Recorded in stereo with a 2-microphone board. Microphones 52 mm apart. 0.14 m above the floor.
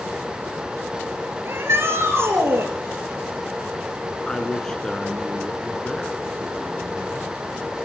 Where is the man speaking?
10° left (ahead or behind), 1.4 m.